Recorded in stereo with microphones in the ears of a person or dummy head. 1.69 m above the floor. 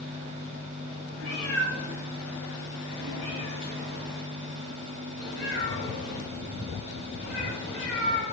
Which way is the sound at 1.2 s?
5° left (ahead or behind).